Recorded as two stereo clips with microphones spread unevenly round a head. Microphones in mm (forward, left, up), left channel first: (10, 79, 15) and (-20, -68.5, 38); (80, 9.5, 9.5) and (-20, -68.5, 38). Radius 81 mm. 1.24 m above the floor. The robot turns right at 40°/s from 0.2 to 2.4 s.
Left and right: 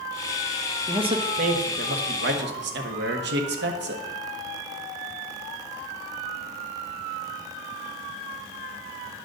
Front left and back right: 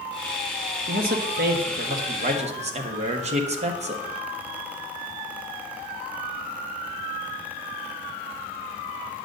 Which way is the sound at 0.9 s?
165° right.